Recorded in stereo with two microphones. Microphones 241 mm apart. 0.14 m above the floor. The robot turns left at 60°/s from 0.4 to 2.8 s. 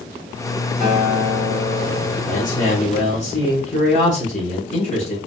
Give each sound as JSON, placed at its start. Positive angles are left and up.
{"t": 0.8, "sound": "a guitar", "azimuth_deg": -135, "distance_m": 1.9}
{"t": 2.3, "sound": "a man speaking", "azimuth_deg": 95, "distance_m": 1.3}